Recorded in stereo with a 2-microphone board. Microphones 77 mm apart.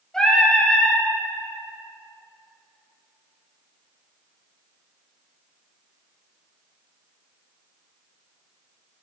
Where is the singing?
10° left (ahead or behind), 2.5 m.